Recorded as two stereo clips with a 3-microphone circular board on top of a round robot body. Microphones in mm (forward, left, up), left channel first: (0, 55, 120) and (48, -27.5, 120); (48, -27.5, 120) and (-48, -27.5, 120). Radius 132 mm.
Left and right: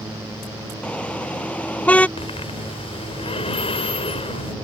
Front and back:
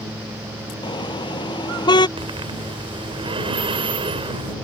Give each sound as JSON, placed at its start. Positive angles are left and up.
{"t": 0.8, "sound": "a car horn", "azimuth_deg": 40}
{"t": 2.2, "sound": "breathing", "azimuth_deg": 145}